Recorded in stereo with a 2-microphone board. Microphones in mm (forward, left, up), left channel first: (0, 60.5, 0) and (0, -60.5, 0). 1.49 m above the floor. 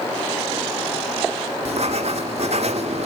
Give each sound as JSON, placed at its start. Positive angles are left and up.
{"t": 1.6, "sound": "writing", "side_deg": -60, "distance_m": 1.9}